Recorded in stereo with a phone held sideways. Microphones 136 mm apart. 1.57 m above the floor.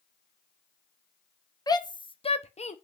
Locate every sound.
1.7 s a shout: 25° left (ahead or behind), 1.0 m; by 2.8 s 50° left (ahead or behind), 0.7 m